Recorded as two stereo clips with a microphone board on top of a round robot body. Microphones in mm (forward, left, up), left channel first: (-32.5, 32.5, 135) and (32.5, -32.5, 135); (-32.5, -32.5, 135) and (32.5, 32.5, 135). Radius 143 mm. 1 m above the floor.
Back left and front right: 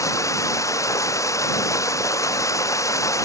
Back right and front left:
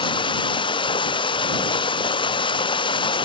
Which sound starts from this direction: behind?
Running water, at 0.0 s.